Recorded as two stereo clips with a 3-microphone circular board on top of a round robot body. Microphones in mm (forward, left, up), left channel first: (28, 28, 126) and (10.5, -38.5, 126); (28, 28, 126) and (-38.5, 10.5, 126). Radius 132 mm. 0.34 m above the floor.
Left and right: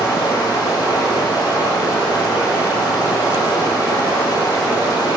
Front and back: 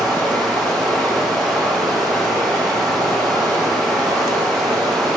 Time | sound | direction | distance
0.0 | running water | 105° left | 8 m